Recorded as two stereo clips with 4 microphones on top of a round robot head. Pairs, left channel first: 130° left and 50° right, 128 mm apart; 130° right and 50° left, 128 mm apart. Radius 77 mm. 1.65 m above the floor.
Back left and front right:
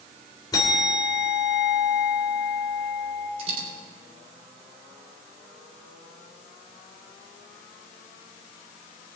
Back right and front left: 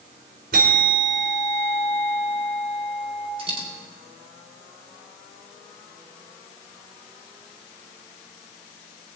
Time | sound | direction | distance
0.5 | a bell | 70° left | 3 m
3.4 | a dropped coin | straight ahead | 3.5 m